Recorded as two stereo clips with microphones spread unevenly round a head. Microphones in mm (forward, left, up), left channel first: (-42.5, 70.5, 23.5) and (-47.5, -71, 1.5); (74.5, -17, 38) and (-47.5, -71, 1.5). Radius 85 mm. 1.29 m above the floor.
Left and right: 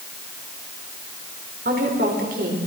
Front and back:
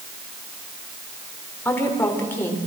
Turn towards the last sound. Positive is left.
turn(degrees=-50)